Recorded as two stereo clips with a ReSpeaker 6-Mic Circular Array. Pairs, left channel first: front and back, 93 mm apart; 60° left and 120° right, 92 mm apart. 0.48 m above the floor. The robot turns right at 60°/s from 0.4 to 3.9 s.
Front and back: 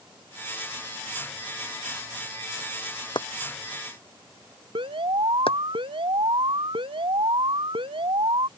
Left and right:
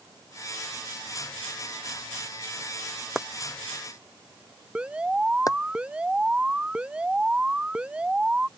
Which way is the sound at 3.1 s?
35° right.